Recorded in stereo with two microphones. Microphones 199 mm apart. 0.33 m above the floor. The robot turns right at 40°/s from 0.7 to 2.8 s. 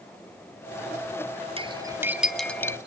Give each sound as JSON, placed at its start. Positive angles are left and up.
{"t": 1.6, "sound": "cutlery clinking", "side_deg": -30, "distance_m": 1.1}